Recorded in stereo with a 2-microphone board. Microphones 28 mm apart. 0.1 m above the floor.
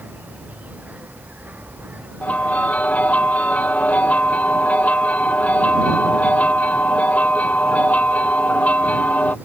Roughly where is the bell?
Left.